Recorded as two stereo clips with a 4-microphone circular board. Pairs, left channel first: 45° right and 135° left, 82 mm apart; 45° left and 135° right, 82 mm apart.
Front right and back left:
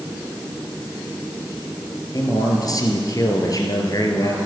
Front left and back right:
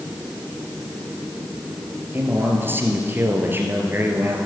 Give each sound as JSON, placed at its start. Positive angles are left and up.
{"t": 2.1, "sound": "a man speaking", "azimuth_deg": -75, "distance_m": 2.5}